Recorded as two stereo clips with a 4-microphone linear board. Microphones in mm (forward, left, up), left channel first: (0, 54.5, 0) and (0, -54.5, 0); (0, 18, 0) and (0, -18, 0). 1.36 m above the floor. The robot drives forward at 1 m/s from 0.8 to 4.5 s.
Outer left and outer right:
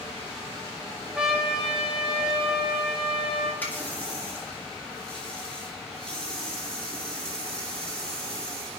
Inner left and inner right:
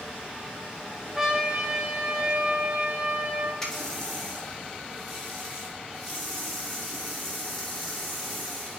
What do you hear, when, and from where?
1.1 s a trumpet: 5° right (ahead or behind), 1.4 m; by 3.5 s centre (ahead or behind), 3.5 m
3.6 s a running tap: 15° left (ahead or behind), 1.5 m; by 8.8 s 10° left (ahead or behind), 2.5 m